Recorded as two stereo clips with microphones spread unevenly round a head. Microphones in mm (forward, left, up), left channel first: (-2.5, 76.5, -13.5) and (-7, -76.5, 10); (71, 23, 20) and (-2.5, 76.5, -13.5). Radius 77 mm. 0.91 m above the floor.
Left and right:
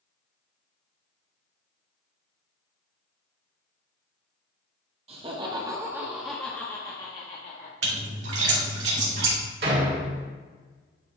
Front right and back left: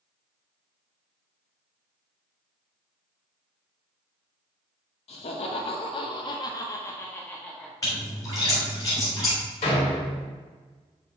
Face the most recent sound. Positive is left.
turn(degrees=-60)